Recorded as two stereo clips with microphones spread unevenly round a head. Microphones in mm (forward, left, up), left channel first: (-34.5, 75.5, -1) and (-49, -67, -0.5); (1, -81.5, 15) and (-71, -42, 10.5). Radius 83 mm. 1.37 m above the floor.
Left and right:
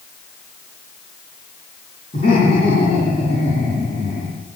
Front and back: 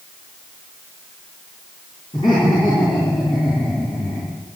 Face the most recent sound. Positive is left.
turn(degrees=35)